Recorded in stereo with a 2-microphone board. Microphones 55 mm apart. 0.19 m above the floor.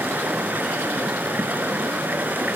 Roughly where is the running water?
Right.